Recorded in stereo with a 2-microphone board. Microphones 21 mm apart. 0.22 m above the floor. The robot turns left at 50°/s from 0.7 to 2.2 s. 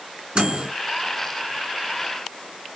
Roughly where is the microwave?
Right.